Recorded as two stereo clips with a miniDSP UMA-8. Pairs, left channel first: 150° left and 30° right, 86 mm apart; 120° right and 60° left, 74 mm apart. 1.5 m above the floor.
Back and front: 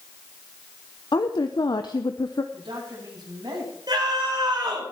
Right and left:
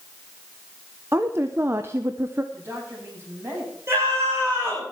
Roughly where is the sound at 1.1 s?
Behind left.